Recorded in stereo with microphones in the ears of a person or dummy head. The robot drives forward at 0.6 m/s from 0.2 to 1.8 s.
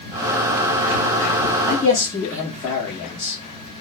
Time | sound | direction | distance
1.7 | a man speaking | 15° left (ahead or behind) | 0.8 m